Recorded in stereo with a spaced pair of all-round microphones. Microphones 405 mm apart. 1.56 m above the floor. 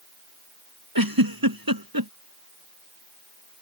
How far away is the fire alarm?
I don't hear a fire alarm.